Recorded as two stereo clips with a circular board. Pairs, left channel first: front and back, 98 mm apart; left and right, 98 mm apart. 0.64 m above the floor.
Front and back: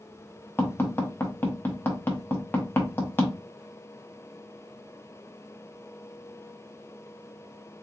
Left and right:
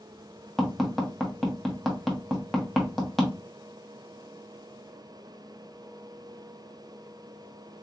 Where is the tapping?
10° left, 1.1 m.